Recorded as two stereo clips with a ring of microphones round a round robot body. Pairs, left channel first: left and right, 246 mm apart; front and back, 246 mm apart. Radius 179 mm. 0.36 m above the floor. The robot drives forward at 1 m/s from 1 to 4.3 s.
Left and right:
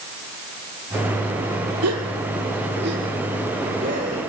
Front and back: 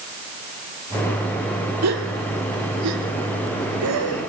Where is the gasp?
135° right, 2 m; by 4.3 s 160° right, 4 m.